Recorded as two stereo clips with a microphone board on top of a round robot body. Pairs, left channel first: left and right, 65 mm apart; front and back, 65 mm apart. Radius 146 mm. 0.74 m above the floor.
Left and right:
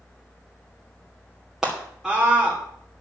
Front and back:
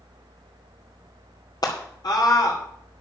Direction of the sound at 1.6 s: 5° right.